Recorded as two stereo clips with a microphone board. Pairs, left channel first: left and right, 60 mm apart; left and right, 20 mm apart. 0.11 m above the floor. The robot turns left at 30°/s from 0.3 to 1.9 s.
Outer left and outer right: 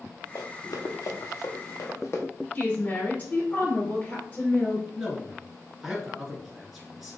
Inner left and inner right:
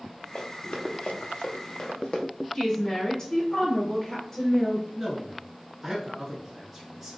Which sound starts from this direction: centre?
A man speaking, at 5.0 s.